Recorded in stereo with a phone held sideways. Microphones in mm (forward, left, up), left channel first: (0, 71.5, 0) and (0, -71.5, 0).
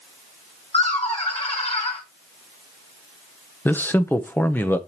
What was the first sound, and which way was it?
Laughter, 45° left (ahead or behind).